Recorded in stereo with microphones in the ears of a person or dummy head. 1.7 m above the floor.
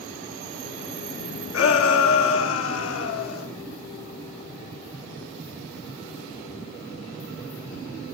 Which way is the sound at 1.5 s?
85° left.